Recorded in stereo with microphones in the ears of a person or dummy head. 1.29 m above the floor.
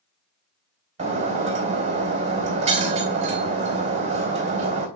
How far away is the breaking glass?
About 3 m.